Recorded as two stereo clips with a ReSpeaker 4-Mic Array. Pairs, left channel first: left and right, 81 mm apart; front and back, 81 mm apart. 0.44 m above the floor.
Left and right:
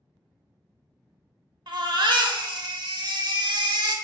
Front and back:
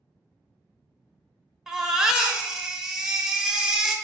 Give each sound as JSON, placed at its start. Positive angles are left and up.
{"t": 1.7, "sound": "a baby crying", "azimuth_deg": -100, "distance_m": 0.5}